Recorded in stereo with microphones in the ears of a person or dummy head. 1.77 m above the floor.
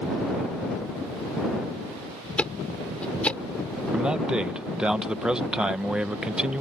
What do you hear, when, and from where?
2.4 s ticking: 5° left (ahead or behind)
3.9 s a man speaking: 5° right (ahead or behind)